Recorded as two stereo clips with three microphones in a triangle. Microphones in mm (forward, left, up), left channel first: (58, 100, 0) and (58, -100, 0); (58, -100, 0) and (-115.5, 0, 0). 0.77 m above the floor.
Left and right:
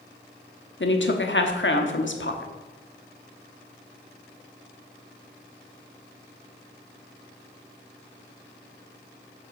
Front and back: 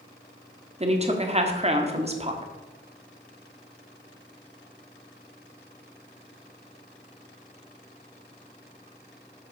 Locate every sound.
0.8 s a woman speaking: 95° left, 1.3 m